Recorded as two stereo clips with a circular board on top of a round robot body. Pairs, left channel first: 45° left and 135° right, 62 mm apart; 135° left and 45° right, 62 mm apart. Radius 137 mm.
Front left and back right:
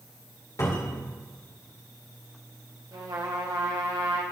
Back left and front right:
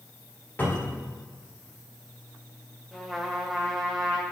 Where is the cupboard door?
75° left, 4 m.